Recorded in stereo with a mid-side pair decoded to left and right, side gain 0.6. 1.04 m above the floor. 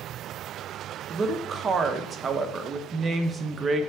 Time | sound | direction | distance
1.1 | a woman speaking | 30° right | 0.8 m